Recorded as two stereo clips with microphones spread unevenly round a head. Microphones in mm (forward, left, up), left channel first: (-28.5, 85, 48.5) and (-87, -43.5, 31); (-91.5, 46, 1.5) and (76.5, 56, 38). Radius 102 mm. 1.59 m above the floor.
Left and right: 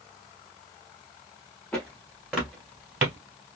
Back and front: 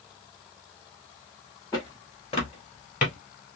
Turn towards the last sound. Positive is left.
turn(degrees=160)